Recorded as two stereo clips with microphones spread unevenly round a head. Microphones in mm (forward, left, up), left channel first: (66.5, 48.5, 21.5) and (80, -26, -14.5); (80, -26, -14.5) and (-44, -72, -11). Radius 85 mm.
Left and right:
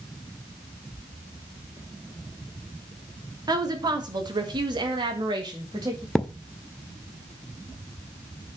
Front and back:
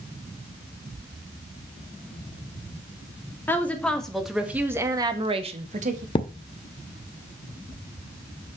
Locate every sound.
3.5 s a woman speaking: 55° right, 2 m; by 6.0 s 135° right, 1.6 m
6.2 s a thud: 55° left, 0.7 m